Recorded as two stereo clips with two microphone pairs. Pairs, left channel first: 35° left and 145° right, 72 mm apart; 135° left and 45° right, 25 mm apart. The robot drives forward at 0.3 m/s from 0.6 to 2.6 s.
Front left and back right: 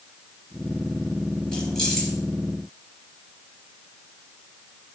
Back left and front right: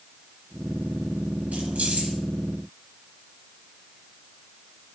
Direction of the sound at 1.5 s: 40° right.